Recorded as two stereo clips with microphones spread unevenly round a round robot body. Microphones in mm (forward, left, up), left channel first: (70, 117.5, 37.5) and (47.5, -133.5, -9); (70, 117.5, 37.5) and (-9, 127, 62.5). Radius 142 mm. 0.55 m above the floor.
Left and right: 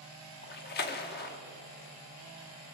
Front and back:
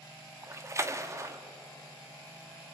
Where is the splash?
120° left, 0.9 m.